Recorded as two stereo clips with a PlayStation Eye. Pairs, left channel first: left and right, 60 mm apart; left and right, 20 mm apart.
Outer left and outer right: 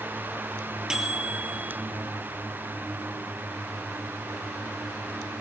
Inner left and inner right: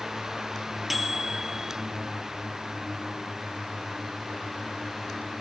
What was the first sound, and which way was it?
A microwave, 10° right (ahead or behind).